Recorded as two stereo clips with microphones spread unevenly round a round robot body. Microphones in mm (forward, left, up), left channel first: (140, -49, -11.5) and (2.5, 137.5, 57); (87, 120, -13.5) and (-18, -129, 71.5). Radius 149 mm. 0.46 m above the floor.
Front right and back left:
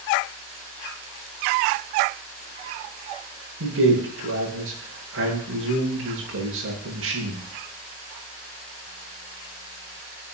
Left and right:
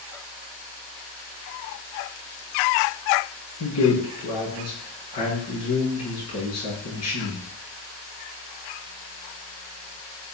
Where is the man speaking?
95° left, 7.5 m.